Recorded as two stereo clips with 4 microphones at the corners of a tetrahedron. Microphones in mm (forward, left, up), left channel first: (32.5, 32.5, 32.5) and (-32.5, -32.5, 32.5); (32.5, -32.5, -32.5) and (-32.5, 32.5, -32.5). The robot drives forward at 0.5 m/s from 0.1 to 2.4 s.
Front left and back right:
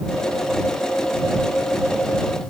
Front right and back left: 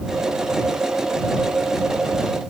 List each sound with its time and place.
Only background noise.